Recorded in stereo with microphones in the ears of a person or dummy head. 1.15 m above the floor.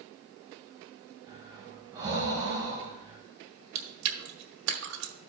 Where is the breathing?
15° right (ahead or behind), 3 m.